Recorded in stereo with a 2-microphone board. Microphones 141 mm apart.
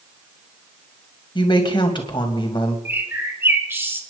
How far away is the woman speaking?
About 2 m.